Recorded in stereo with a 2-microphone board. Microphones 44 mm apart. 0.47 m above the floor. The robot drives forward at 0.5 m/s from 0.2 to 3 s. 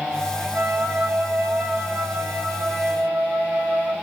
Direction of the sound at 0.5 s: 65° right (ahead or behind).